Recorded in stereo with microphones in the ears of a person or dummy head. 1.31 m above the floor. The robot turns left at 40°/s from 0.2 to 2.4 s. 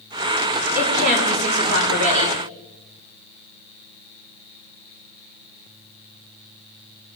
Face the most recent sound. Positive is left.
turn(degrees=-110)